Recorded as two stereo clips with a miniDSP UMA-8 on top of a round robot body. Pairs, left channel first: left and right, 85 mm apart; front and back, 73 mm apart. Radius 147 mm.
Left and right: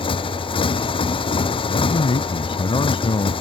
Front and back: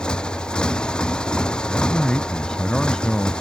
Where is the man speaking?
80° left.